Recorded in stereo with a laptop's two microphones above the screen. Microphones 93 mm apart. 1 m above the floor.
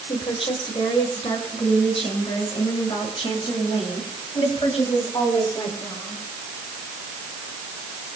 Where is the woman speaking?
80° left, 5 m; by 6.2 s 70° left (ahead or behind), 8.5 m.